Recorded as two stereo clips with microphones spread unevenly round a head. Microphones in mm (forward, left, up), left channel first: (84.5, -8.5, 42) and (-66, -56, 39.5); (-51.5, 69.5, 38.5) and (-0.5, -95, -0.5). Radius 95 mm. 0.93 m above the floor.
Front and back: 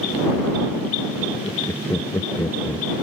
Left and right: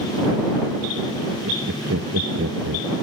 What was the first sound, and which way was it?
Laughter, 55° right.